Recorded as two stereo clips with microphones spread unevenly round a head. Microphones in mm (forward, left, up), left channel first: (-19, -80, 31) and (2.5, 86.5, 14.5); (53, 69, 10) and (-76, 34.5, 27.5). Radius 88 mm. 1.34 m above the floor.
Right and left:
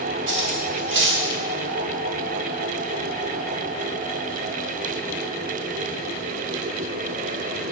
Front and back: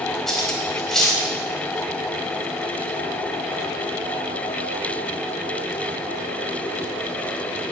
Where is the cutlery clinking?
105° left, 4 m.